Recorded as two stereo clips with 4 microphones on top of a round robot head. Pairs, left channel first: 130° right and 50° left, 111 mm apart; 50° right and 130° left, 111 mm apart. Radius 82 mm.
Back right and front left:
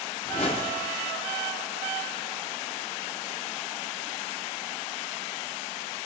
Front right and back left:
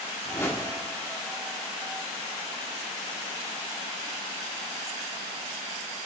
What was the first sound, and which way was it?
A whoosh, 110° right.